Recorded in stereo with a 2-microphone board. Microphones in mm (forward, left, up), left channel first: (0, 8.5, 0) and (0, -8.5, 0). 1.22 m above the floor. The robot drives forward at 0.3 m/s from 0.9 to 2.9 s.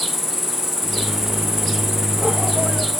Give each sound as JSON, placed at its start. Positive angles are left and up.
{"t": 0.0, "sound": "an insect", "side_deg": -5, "distance_m": 0.8}